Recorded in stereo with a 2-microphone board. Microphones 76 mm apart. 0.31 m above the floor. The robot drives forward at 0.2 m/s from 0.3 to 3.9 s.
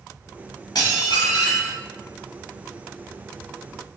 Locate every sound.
0.8 s dishes clattering: 55° left (ahead or behind), 1.0 m